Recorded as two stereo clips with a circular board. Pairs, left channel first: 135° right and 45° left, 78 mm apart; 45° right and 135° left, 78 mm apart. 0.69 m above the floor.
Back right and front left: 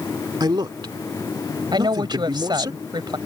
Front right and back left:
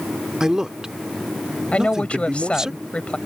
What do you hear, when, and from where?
0.4 s a man speaking: 55° left
1.7 s a woman speaking: 30° left